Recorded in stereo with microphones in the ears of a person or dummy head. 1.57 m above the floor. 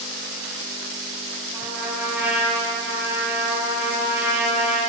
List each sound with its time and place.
1.5 s a trumpet: 5° right (ahead or behind), 1.7 m